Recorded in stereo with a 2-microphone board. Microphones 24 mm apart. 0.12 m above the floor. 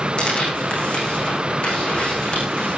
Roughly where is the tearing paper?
Left.